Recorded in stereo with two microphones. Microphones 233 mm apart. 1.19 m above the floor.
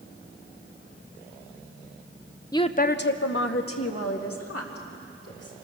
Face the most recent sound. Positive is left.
turn(degrees=85)